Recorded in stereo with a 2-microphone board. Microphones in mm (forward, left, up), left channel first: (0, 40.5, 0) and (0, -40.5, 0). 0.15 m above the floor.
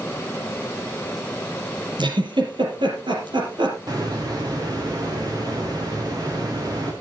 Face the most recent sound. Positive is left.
turn(degrees=-50)  # may be behind; listen again after turning